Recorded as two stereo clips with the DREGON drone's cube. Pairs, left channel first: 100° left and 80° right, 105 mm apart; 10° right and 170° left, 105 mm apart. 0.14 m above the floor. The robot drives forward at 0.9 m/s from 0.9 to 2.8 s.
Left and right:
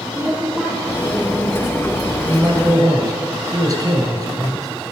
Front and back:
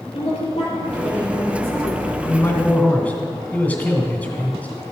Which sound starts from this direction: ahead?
A woman speaking, at 0.1 s.